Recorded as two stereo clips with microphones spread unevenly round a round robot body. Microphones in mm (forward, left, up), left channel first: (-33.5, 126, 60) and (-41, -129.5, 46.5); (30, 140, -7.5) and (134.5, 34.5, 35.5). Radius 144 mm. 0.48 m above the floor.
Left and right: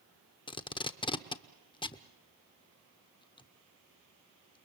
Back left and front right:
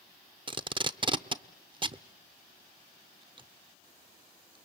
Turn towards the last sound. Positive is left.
turn(degrees=20)